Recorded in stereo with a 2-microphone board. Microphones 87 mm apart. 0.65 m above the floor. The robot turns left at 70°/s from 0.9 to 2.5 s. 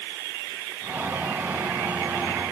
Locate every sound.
Only background noise.